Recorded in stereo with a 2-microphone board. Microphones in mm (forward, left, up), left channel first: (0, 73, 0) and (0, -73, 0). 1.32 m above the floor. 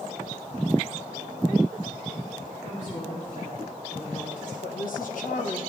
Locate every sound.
2.6 s a woman speaking: 60° left (ahead or behind), 3.5 m
4.6 s a woman speaking: 75° left (ahead or behind), 1.6 m